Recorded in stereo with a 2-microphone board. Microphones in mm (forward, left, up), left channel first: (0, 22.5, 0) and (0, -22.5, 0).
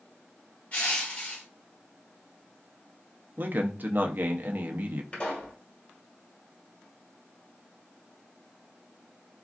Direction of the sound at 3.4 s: 40° right (ahead or behind).